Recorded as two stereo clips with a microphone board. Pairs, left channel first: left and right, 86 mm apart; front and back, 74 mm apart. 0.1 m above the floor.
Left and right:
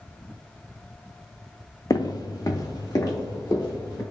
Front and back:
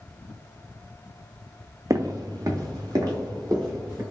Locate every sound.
1.9 s footsteps: 135° left, 0.6 m; by 4.0 s 140° left, 3 m